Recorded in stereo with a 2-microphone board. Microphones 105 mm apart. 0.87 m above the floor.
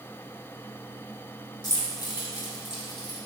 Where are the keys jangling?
40° left (ahead or behind), 1.7 m.